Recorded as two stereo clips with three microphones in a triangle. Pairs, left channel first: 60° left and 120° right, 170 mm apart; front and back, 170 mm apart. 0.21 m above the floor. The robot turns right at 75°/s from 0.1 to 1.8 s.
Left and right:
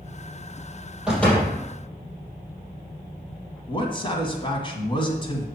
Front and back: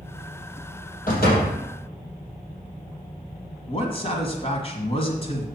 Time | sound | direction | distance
1.1 | a door slam | 35° right | 4 m
3.7 | a man speaking | 25° left | 1.9 m